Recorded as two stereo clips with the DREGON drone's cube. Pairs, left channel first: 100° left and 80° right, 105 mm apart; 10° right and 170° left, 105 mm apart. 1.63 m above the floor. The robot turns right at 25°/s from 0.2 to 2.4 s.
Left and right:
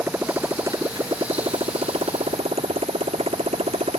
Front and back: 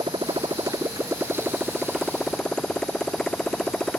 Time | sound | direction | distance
0.0 | a motorcycle | 150° right | ?